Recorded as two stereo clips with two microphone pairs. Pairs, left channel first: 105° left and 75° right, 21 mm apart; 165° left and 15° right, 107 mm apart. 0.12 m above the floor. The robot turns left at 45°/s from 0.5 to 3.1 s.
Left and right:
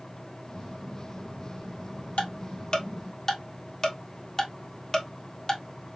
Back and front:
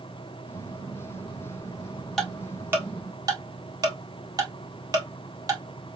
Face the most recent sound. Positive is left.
turn(degrees=40)